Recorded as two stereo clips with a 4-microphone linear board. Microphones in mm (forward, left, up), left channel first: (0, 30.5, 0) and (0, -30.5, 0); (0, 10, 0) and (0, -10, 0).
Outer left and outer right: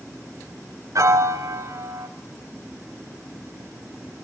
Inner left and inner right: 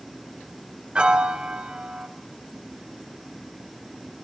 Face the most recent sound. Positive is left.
turn(degrees=-60)  # may be behind; listen again after turning